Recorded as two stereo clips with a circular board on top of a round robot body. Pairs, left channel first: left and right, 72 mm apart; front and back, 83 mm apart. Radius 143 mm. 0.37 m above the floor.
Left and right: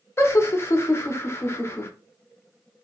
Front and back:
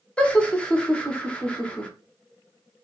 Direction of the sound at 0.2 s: 70° left.